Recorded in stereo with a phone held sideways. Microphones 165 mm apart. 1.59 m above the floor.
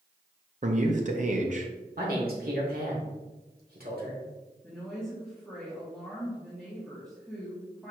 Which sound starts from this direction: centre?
A woman speaking, at 4.6 s.